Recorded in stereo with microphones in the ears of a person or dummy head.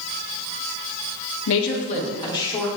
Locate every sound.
1.5 s a woman speaking: 65° left (ahead or behind), 0.6 m; by 2.7 s 15° left (ahead or behind), 1.7 m